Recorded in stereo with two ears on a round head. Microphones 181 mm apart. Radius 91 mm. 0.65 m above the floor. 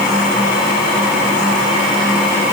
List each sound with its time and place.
Only background noise.